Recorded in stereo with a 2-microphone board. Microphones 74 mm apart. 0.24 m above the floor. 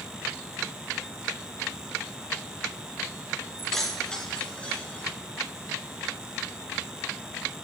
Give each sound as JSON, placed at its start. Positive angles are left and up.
{"t": 3.6, "sound": "keys jangling", "side_deg": 0, "distance_m": 2.0}